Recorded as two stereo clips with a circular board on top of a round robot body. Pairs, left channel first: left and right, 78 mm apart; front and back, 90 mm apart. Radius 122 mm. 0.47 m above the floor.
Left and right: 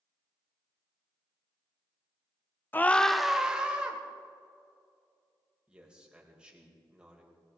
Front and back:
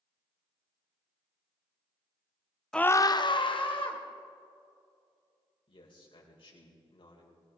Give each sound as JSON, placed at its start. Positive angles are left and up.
{"t": 2.7, "sound": "a scream", "azimuth_deg": 75, "distance_m": 0.7}
{"t": 5.7, "sound": "a man speaking", "azimuth_deg": -10, "distance_m": 3.5}